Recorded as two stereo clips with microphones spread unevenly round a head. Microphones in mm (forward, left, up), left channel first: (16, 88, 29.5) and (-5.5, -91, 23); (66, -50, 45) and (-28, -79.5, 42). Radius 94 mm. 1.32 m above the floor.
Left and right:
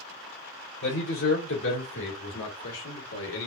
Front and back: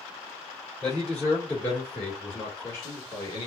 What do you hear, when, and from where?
0.8 s a man speaking: 105° left, 3 m; by 3.5 s 80° left, 1.5 m